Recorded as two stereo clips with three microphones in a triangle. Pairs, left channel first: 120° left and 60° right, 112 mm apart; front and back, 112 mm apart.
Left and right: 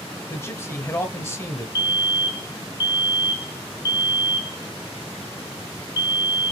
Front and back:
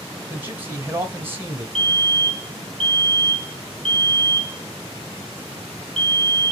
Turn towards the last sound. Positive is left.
turn(degrees=85)